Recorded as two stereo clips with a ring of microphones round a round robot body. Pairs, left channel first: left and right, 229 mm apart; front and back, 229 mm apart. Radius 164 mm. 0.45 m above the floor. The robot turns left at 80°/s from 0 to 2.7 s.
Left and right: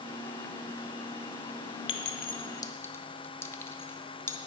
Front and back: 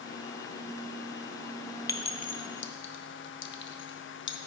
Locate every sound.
1.9 s a clink: 75° left, 0.6 m; by 4.4 s 10° left, 0.6 m